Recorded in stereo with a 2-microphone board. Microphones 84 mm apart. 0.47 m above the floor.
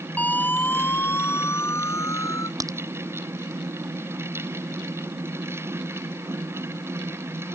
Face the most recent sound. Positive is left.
turn(degrees=-45)  # may be behind; listen again after turning